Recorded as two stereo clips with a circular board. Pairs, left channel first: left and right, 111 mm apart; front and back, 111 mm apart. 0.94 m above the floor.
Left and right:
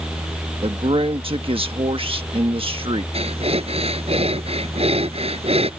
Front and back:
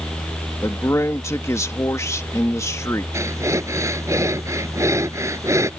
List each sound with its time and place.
0.6 s a man speaking: 65° right
3.1 s breathing: 115° right